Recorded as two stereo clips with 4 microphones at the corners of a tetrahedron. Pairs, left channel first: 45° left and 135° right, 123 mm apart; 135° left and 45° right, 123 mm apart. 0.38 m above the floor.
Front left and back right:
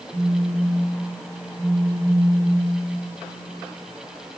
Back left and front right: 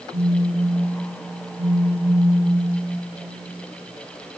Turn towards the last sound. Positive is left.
turn(degrees=-85)